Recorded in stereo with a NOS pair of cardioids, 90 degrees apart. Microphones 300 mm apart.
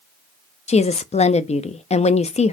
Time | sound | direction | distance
0.7 | a woman speaking | 20° left | 0.7 m